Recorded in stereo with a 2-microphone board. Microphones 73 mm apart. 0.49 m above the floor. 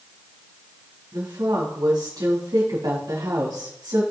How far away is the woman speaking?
About 4.5 m.